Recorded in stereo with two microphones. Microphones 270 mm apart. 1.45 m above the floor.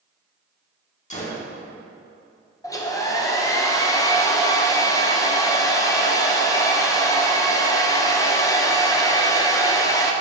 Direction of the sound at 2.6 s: 10° left (ahead or behind).